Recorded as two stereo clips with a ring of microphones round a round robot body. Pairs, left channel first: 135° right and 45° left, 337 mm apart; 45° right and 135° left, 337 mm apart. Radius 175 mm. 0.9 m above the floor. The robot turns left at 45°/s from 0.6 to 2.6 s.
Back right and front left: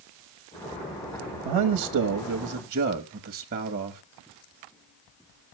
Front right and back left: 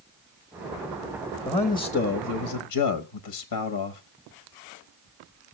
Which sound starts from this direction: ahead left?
A man speaking, at 1.4 s.